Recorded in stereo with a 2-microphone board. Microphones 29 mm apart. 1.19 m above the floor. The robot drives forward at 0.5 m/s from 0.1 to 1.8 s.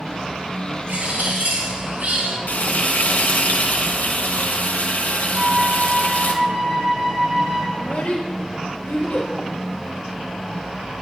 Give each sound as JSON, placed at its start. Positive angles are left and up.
{"t": 0.9, "sound": "a bird", "side_deg": -75, "distance_m": 2.5}
{"t": 2.5, "sound": "frying", "side_deg": 80, "distance_m": 1.0}
{"t": 5.3, "sound": "a flute", "side_deg": -50, "distance_m": 4.5}
{"t": 7.8, "sound": "a child speaking", "side_deg": 75, "distance_m": 0.9}